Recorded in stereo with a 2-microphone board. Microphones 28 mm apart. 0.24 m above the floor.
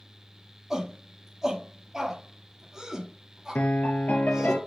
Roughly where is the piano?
Left.